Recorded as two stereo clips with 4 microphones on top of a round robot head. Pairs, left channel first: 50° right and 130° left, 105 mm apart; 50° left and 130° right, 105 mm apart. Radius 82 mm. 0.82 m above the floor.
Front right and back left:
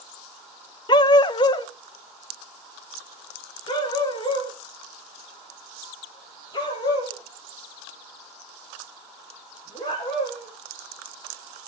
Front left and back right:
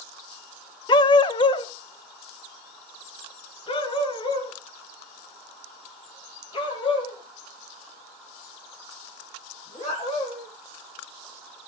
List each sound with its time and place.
0.9 s a dog barking: straight ahead, 0.7 m; by 10.5 s 5° left, 11.5 m